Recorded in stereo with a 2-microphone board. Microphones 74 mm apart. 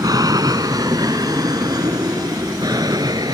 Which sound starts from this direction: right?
An aircraft, at 0.0 s.